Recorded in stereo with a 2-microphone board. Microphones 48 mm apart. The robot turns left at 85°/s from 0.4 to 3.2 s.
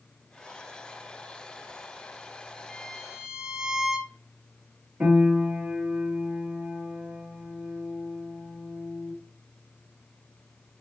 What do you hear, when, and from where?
2.7 s a violin: centre (ahead or behind), 1.3 m; by 4.1 s 15° right (ahead or behind), 1.3 m
5.0 s a piano: 35° right (ahead or behind), 3 m